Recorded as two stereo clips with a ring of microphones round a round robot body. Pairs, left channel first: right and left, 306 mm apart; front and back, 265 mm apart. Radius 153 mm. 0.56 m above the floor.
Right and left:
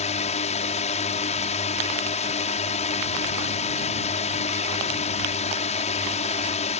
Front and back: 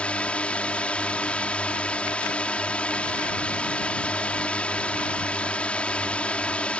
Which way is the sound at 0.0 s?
80° right.